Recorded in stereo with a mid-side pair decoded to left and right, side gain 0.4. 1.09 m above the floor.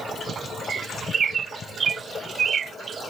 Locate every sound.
0.7 s a bird: 50° right